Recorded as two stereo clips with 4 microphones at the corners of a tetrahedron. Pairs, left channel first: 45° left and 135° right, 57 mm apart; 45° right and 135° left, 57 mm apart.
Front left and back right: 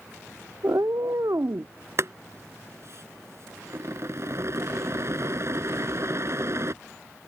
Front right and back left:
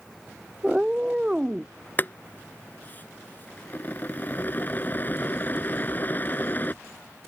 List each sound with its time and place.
0.6 s a cat meowing: 150° right
2.0 s boiling: 100° right